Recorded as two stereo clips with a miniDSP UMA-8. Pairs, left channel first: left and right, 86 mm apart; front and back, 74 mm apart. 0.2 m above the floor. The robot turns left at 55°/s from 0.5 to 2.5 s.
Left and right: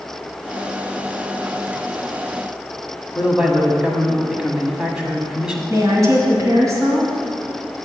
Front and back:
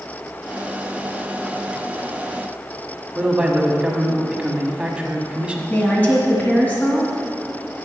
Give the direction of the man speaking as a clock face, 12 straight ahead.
5 o'clock.